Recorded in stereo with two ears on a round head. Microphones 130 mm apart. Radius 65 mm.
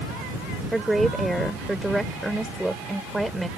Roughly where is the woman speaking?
Centre.